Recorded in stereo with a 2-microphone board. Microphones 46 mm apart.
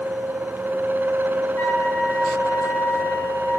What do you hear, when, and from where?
1.6 s a flute: 75° left (ahead or behind), 3 m